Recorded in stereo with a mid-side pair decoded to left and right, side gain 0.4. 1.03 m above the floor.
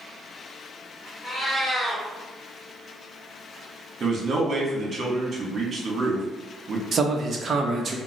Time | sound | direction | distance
1.2 | a cat meowing | 5° left | 1.8 m
4.0 | a man speaking | 50° right | 1.4 m
6.9 | a man speaking | 50° right | 0.8 m